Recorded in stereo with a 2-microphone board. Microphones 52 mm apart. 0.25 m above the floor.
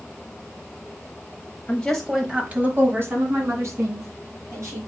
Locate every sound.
1.7 s a woman speaking: 20° left (ahead or behind), 1.0 m; by 4.9 s 70° right (ahead or behind), 3.5 m